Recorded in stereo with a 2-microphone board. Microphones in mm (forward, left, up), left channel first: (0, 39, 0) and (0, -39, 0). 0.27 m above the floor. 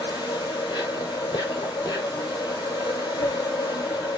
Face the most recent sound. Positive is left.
turn(degrees=75)  # may be behind; listen again after turning